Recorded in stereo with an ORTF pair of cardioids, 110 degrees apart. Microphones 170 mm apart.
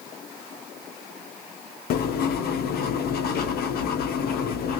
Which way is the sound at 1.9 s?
65° left.